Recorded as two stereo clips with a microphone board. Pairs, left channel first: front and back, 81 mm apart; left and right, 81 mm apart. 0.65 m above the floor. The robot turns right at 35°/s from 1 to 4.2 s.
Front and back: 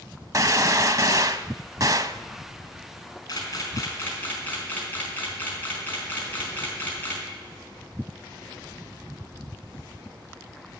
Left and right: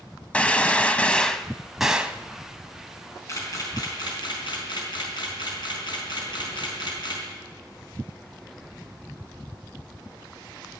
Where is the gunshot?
160° left, 0.6 m; by 2.2 s 160° right, 0.6 m.